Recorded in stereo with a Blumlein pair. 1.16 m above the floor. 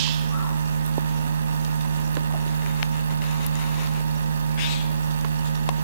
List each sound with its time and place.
0.0 s a machine running: 70° right